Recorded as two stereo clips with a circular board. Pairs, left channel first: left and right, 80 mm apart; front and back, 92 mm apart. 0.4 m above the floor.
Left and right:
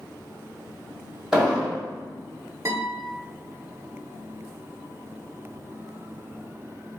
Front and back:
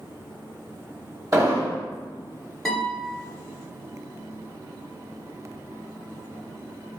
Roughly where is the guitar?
Right.